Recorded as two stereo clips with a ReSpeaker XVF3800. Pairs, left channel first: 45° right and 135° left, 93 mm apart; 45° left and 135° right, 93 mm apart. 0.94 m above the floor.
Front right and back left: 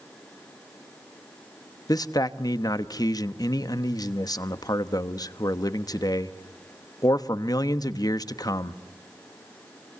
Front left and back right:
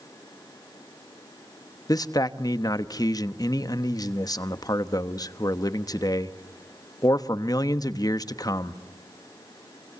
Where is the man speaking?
Straight ahead, 1.0 m.